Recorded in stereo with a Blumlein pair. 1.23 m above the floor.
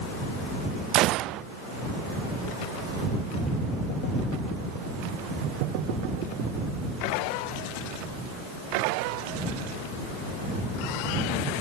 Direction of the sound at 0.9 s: 35° right.